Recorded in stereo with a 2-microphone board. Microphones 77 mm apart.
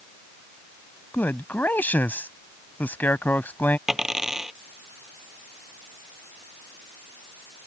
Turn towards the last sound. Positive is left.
turn(degrees=-5)  # may be behind; listen again after turning